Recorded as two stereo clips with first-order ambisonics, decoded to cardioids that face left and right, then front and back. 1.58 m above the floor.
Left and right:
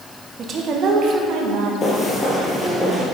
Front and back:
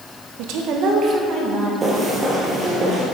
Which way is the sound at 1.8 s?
135° left.